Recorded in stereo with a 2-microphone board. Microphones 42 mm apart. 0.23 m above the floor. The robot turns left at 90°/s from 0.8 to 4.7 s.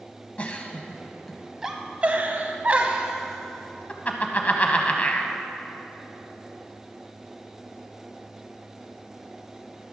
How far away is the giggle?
About 0.9 m.